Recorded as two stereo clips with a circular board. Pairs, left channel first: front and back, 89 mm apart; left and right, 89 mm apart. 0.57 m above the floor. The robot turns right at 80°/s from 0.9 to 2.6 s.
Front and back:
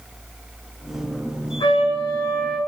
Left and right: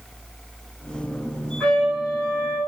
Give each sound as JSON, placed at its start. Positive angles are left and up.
{"t": 1.6, "sound": "a trumpet", "azimuth_deg": 5, "distance_m": 4.0}